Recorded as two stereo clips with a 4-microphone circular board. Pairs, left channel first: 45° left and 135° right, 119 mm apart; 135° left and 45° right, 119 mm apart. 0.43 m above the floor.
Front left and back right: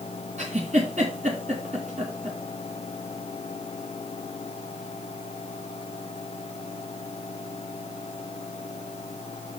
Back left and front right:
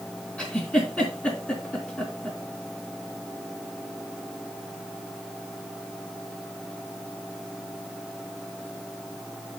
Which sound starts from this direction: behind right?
A giggle, at 0.4 s.